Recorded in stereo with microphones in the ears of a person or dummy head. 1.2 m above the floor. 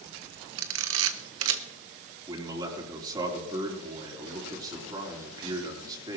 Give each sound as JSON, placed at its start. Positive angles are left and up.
{"t": 0.6, "sound": "a camera shutter", "side_deg": -70, "distance_m": 1.2}
{"t": 2.3, "sound": "a man speaking", "side_deg": -25, "distance_m": 4.0}